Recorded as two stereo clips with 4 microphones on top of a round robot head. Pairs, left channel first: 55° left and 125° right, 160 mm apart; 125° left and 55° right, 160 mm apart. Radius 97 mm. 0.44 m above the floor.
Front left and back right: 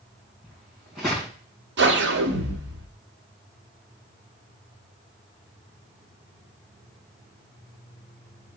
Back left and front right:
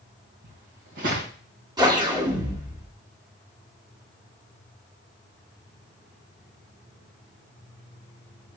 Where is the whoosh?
120° right, 1.4 m.